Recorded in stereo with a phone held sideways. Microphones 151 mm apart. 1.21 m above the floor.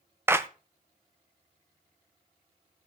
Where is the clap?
15° right (ahead or behind), 0.6 m.